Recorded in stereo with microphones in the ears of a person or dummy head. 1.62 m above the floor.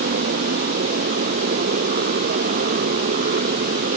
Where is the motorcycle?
45° right (ahead or behind).